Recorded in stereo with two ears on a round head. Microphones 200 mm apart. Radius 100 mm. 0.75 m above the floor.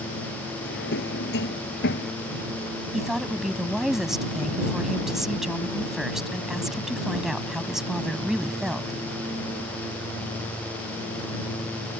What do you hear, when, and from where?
0.6 s a drawer: 50° left (ahead or behind)
2.9 s a woman speaking: centre (ahead or behind)